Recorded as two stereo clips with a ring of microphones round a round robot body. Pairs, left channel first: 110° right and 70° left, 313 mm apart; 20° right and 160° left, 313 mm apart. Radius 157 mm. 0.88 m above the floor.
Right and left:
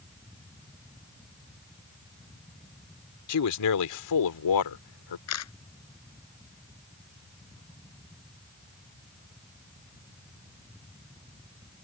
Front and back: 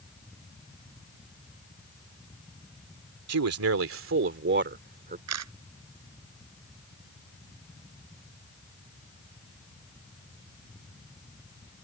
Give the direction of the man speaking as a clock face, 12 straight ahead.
5 o'clock.